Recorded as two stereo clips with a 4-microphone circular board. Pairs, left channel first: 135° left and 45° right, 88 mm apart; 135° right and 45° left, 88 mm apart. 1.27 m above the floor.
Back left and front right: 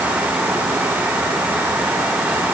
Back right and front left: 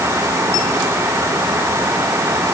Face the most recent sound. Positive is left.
No sound to turn to.